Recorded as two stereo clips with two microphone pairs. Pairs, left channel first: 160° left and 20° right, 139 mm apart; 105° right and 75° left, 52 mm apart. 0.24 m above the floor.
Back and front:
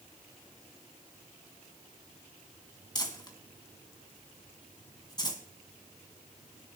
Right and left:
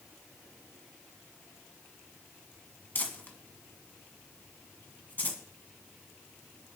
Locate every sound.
3.0 s crumpling: 145° right, 1.8 m